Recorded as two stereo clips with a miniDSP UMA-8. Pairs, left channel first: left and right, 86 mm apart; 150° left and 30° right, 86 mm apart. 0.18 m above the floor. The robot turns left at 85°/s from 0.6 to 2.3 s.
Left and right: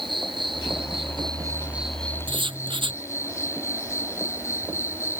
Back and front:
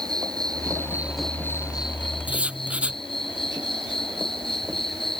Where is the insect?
70° right; by 5.2 s 145° left.